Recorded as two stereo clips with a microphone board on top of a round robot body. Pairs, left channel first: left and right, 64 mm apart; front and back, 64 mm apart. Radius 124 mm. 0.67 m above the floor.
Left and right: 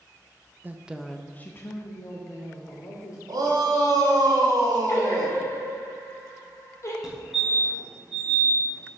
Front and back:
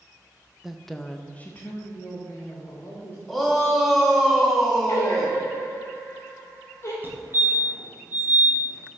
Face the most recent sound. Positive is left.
turn(degrees=-165)